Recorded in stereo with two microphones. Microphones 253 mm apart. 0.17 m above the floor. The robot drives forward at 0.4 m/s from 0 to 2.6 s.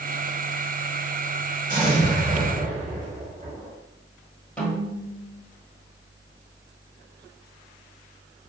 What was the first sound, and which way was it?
An explosion, 35° right (ahead or behind).